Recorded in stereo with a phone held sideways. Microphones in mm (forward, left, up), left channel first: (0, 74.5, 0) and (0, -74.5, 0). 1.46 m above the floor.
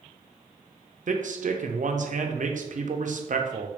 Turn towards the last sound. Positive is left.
turn(degrees=-60)  # may be behind; listen again after turning